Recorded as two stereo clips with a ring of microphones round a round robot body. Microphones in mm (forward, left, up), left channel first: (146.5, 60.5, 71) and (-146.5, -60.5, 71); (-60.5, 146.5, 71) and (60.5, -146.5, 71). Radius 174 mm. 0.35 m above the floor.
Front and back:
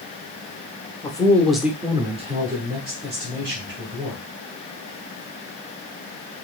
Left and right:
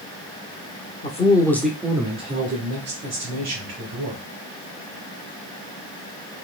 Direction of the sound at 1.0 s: 80° left.